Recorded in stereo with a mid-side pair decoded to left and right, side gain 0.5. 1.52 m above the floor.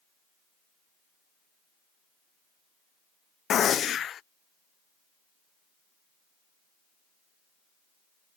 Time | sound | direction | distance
3.5 | a gunshot | 50° left | ?